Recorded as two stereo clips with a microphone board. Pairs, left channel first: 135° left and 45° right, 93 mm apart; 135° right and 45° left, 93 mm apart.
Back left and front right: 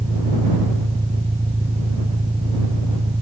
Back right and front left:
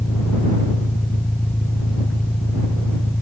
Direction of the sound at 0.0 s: 55° right.